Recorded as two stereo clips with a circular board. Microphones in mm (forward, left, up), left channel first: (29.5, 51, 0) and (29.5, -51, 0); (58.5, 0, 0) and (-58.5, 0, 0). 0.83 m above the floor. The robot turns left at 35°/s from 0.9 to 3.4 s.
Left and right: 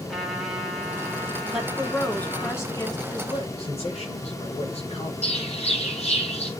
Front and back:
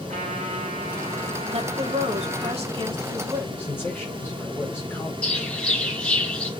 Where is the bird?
80° left, 6 m.